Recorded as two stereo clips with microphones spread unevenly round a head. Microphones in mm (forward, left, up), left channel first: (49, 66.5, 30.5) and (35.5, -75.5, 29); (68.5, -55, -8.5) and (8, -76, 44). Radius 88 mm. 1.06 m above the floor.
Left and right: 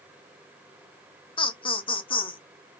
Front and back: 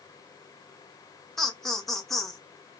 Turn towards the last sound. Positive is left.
turn(degrees=45)